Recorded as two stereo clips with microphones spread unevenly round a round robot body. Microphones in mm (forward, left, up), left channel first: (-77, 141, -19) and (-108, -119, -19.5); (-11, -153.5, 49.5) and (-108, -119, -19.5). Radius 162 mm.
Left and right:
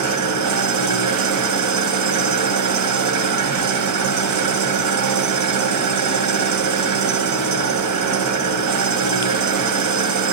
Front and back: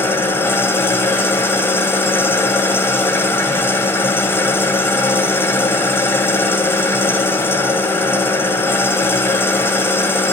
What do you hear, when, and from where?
0.0 s an engine running: 95° right, 2 m